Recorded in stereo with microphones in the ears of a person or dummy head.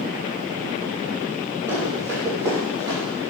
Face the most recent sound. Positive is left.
turn(degrees=-20)  # may be behind; listen again after turning